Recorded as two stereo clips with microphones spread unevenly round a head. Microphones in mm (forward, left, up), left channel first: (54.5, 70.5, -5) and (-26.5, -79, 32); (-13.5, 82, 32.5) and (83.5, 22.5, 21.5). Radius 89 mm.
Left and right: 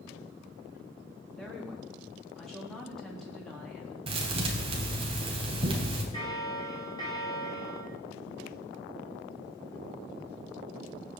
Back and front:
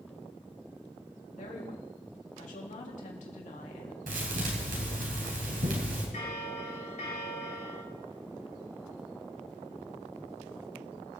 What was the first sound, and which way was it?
A woman speaking, 150° left.